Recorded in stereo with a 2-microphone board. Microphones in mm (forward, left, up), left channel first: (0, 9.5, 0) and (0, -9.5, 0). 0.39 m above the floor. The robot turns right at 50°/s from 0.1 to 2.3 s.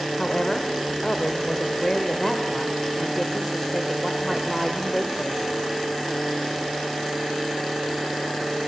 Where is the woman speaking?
55° left, 1.3 m; by 5.5 s 165° left, 1.3 m.